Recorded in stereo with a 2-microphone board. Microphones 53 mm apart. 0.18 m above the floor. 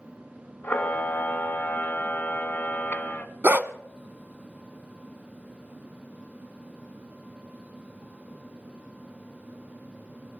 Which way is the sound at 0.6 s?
35° left (ahead or behind).